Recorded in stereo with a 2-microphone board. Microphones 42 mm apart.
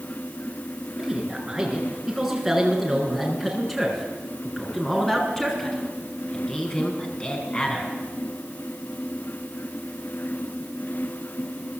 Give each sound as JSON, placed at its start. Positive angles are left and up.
{"t": 1.0, "sound": "a man speaking", "side_deg": -10, "distance_m": 8.0}